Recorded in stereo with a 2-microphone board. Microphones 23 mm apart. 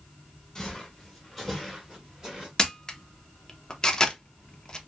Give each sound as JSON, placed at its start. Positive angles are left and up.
{"t": 0.6, "sound": "footsteps", "side_deg": 20, "distance_m": 1.7}
{"t": 2.6, "sound": "a camera shutter", "side_deg": 25, "distance_m": 0.6}